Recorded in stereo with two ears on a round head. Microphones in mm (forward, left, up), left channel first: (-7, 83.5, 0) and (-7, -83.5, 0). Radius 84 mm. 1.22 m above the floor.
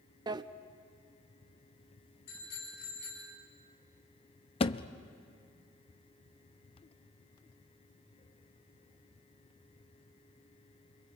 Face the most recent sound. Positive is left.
turn(degrees=30)  # may be behind; listen again after turning